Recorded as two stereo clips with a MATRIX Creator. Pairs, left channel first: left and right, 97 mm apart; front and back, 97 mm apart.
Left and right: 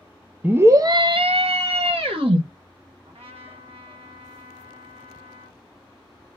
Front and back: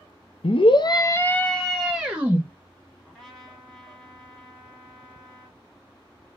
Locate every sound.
0.4 s a scream: 15° right, 0.5 m; by 2.4 s 105° right, 0.9 m
3.0 s a trumpet: 80° right, 1.4 m